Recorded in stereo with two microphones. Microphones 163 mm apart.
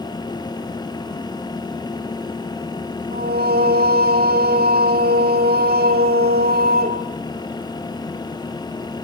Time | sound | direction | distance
3.1 | singing | 90° right | 3 m